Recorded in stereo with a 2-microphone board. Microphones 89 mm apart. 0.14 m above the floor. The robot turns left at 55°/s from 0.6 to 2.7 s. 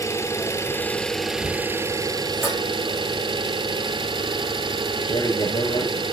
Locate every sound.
0.0 s an engine running: 35° left, 1.2 m; by 6.1 s 80° right, 1.2 m
2.4 s dishes clattering: 5° right (ahead or behind), 5.5 m; by 2.6 s 5° left (ahead or behind), 5.5 m
5.0 s a man speaking: 50° left (ahead or behind), 3 m